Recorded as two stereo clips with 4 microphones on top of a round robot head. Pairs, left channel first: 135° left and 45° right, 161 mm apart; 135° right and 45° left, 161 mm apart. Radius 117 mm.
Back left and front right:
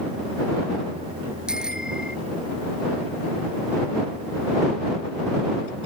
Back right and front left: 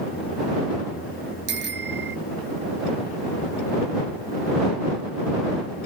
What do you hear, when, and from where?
1.5 s a bicycle bell: 40° left